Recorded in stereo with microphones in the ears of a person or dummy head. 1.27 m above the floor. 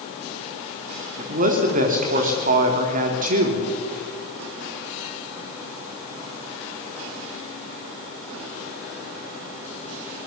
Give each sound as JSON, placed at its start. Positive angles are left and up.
{"t": 1.2, "sound": "a man speaking", "side_deg": -45, "distance_m": 3.0}